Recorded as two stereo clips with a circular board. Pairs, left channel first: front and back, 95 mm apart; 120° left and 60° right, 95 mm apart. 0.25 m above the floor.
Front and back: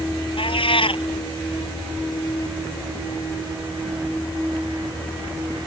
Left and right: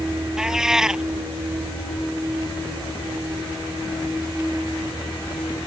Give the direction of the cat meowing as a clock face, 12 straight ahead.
11 o'clock.